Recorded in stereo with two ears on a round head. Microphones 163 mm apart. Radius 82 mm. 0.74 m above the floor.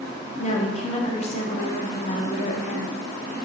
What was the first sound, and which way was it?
A woman speaking, 35° left (ahead or behind).